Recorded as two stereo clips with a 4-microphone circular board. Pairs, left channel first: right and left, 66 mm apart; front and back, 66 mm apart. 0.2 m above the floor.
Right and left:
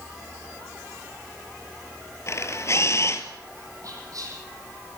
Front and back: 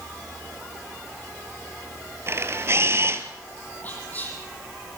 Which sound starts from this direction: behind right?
A camera shutter, at 2.3 s.